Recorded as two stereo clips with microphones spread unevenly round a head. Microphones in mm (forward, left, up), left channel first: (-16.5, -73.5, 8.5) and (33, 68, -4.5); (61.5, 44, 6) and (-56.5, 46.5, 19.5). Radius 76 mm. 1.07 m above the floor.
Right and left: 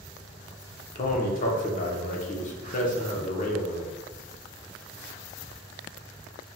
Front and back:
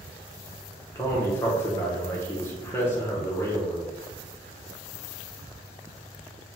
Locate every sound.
0.9 s a man speaking: 70° right, 0.9 m